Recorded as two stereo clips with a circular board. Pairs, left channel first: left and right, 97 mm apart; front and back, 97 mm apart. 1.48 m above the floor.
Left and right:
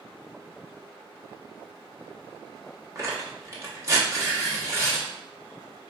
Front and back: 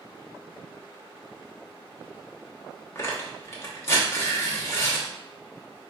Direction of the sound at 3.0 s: 45° right.